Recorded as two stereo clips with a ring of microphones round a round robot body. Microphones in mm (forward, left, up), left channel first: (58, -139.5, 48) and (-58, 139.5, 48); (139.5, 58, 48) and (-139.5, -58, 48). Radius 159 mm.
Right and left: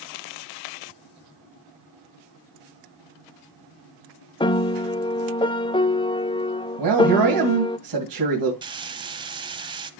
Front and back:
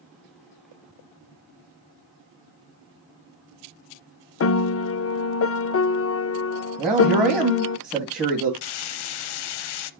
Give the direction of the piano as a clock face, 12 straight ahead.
12 o'clock.